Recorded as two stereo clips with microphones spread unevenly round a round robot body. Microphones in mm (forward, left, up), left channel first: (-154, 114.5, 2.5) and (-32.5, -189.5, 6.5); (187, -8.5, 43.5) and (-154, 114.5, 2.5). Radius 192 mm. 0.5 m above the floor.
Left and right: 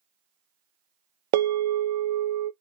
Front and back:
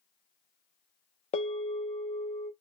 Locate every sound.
1.3 s a bell: 95° right, 0.5 m